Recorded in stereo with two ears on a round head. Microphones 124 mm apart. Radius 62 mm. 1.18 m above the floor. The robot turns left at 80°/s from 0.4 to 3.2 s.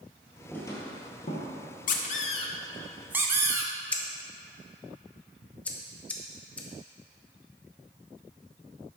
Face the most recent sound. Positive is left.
turn(degrees=10)  # may be behind; listen again after turning